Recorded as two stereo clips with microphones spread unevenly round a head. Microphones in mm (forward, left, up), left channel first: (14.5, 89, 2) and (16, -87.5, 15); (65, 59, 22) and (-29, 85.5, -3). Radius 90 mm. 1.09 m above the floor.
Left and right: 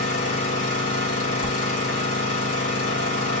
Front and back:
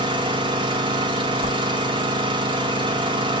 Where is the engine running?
135° left, 1.7 m.